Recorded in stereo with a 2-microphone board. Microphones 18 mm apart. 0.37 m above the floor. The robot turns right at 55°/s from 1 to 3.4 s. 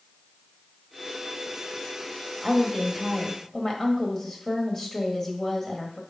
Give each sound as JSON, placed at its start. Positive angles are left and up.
{"t": 2.4, "sound": "a woman speaking", "azimuth_deg": -25, "distance_m": 1.7}